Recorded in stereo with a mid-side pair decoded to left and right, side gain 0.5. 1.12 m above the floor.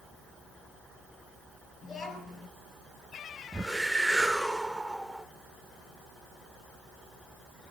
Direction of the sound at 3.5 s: 5° right.